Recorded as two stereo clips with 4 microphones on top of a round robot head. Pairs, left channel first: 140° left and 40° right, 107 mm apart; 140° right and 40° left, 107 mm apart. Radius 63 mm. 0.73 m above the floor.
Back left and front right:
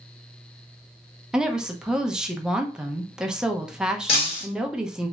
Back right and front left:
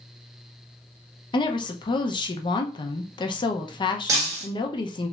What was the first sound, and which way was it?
A woman speaking, 125° right.